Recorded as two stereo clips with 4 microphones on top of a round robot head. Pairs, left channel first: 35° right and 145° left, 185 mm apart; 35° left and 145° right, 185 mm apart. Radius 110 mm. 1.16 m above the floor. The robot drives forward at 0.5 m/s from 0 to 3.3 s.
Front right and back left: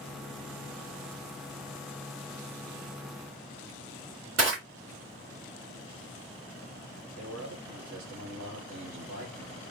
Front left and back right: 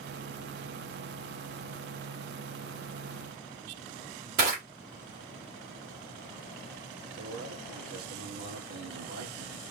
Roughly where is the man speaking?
Behind.